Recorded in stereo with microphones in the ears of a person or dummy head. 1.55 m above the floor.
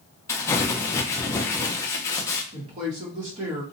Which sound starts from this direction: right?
A woman speaking, at 2.5 s.